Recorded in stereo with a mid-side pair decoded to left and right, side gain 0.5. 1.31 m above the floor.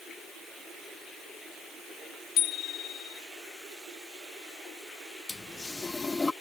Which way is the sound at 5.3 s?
20° left.